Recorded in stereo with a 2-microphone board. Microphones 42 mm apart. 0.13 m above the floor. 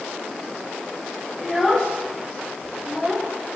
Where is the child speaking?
15° left (ahead or behind), 7 m; by 3.3 s 5° left (ahead or behind), 8.5 m.